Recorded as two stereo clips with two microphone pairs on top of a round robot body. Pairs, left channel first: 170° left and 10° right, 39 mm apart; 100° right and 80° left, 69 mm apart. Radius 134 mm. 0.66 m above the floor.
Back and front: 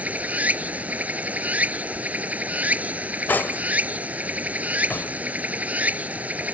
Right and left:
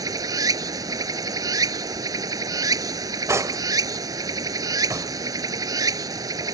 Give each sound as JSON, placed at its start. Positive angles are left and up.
{"t": 0.0, "sound": "running water", "azimuth_deg": 40}
{"t": 3.3, "sound": "cutlery clinking", "azimuth_deg": 130}